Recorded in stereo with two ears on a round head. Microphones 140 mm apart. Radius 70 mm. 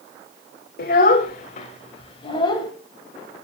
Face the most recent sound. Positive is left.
turn(degrees=30)  # may be behind; listen again after turning